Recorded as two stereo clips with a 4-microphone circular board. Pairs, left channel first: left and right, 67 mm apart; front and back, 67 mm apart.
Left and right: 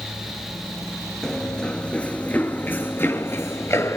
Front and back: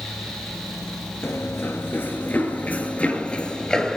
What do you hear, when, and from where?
1.2 s running footsteps: 10° left, 1.8 m; by 4.0 s 75° left, 2 m